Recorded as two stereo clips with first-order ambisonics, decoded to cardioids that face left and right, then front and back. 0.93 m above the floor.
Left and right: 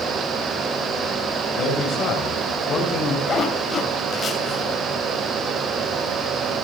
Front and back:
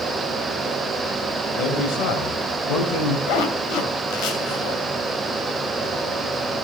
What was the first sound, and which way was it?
A man speaking, 40° left.